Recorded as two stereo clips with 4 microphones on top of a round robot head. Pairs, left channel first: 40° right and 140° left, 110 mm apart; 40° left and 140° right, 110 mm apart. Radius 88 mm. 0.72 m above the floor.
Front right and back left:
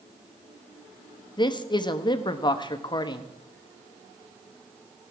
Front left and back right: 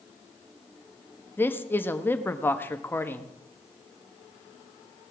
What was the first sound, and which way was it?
A man speaking, 25° right.